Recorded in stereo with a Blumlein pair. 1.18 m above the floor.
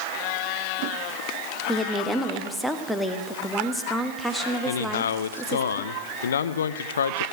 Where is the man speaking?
65° left, 0.8 m.